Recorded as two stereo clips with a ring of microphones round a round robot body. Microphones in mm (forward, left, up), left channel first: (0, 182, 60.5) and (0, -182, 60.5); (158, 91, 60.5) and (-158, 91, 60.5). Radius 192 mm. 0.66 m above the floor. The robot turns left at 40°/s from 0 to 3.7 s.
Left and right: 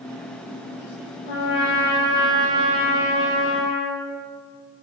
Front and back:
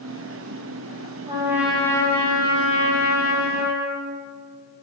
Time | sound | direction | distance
1.3 | a trumpet | 110° left | 4 m